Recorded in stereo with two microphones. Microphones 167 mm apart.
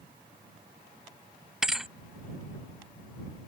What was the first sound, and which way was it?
A thud, 5° right (ahead or behind).